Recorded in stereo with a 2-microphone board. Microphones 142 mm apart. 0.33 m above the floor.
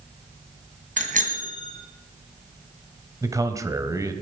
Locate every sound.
1.0 s a bicycle bell: 65° right (ahead or behind), 2 m
3.2 s a man speaking: 25° right (ahead or behind), 1.3 m